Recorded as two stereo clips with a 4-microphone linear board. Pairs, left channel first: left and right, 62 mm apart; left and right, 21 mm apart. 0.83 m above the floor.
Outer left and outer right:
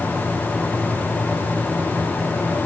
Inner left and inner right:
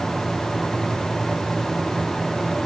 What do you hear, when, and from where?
Only background noise.